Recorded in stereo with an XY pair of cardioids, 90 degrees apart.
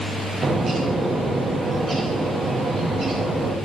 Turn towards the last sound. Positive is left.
turn(degrees=-45)